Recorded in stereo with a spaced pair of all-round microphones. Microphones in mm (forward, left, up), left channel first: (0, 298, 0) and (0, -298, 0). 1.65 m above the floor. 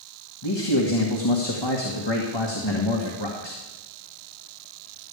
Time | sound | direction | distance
0.4 | a man speaking | 45° left (ahead or behind) | 1.7 m